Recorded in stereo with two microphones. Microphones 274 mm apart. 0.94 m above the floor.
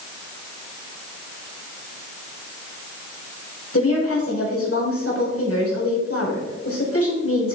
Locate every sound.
3.7 s a woman speaking: 60° left (ahead or behind), 4.5 m